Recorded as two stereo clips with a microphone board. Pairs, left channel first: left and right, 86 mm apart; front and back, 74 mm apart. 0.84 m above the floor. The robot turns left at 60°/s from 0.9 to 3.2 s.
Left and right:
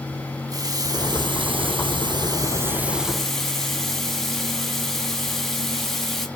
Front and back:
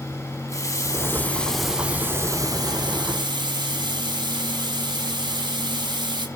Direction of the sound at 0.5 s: 45° right.